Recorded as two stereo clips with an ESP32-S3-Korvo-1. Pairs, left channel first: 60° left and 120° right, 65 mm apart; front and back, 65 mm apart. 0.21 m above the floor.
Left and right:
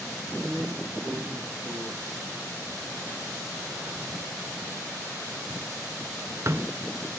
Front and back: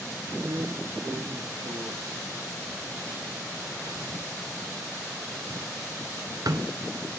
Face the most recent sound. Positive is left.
turn(degrees=-165)